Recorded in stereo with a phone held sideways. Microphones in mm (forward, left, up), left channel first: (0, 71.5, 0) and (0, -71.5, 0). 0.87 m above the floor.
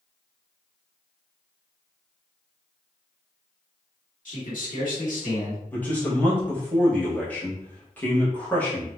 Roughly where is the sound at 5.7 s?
Centre.